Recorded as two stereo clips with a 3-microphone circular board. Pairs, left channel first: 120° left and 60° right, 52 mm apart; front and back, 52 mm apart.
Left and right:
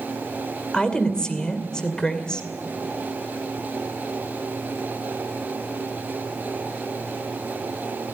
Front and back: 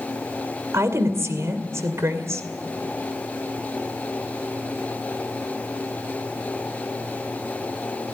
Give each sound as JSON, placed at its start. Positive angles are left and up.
{"t": 0.7, "sound": "a woman speaking", "azimuth_deg": -165, "distance_m": 2.5}